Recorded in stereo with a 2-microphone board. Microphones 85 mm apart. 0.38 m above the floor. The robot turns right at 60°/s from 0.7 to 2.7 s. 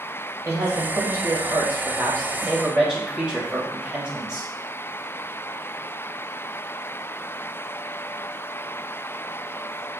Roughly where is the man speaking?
Behind right.